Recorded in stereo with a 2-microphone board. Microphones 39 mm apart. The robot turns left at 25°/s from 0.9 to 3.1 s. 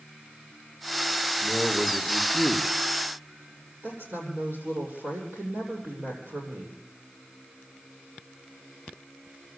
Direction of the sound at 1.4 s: 90° right.